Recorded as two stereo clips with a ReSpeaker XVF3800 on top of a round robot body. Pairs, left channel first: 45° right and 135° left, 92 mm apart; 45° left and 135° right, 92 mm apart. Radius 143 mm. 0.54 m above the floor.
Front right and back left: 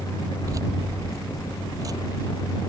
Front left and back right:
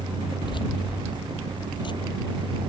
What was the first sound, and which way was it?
Keys jangling, 80° left.